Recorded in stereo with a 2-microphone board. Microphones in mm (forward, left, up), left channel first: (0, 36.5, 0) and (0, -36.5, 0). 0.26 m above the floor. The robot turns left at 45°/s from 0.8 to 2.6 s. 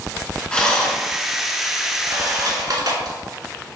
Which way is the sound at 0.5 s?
15° left (ahead or behind).